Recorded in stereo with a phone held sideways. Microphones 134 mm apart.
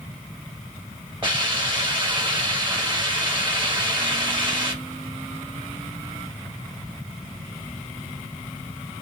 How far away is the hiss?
About 1.4 m.